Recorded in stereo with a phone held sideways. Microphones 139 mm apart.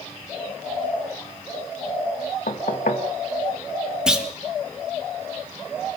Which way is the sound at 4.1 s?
5° right (ahead or behind).